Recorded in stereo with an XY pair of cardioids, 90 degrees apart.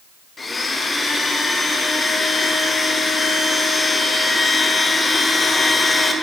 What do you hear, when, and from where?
0.4 s a blender: 30° left, 0.7 m